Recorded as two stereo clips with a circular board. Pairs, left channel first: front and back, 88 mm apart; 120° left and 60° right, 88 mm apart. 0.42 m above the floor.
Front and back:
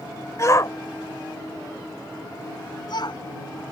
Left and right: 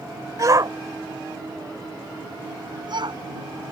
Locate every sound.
0.4 s a shout: 35° right; by 3.2 s 30° right